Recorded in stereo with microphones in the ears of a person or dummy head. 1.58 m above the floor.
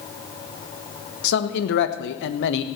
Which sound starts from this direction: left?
A man speaking, at 1.2 s.